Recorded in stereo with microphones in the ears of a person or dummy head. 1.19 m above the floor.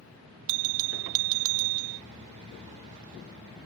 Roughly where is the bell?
Right.